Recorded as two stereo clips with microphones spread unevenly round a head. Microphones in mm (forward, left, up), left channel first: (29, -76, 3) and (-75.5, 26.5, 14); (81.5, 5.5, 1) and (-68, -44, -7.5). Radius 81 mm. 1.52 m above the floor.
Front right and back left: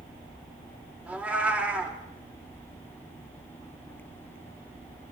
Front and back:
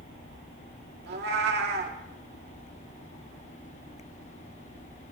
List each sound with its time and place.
1.1 s a cat meowing: 145° right, 1.9 m